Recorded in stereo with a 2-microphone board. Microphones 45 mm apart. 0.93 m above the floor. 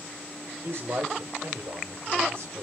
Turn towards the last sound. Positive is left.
turn(degrees=-75)  # may be behind; listen again after turning